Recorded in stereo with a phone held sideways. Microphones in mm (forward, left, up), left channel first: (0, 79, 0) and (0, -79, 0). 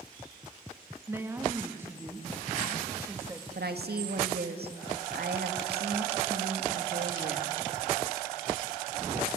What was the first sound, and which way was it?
A woman speaking, 15° right (ahead or behind).